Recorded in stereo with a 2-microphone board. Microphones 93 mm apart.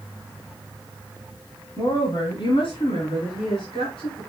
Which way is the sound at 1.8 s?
60° left (ahead or behind).